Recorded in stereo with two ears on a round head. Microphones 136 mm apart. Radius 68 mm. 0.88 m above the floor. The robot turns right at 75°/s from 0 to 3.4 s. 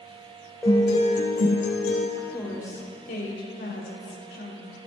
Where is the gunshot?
I don't hear a gunshot.